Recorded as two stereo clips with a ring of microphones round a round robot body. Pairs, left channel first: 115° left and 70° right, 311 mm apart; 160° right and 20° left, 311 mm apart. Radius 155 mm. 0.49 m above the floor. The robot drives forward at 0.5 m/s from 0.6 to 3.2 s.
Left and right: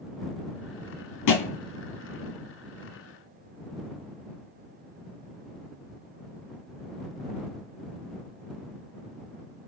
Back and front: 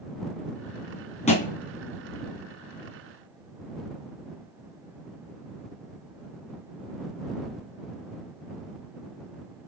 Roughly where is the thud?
Behind left.